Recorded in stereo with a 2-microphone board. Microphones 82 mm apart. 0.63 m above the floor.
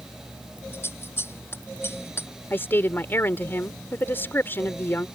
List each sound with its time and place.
0.7 s scissors: 30° left (ahead or behind)
2.5 s a woman speaking: 30° left (ahead or behind)